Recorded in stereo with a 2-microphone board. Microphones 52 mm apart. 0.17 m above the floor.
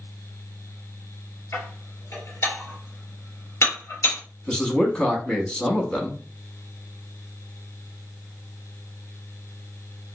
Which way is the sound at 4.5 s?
20° left (ahead or behind).